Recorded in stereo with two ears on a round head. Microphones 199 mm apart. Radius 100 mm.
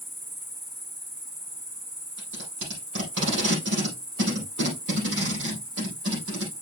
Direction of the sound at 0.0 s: 20° right (ahead or behind).